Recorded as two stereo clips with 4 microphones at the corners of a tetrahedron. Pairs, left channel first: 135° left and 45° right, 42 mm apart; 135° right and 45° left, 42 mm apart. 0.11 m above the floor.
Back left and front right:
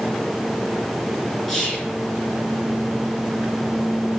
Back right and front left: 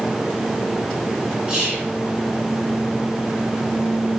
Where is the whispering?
75° left, 1.4 m.